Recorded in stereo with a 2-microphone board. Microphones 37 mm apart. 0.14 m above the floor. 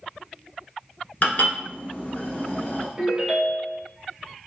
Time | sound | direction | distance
1.2 | dishes clattering | 45° left (ahead or behind) | 1.3 m
3.0 | a ringtone | 20° right (ahead or behind) | 1.9 m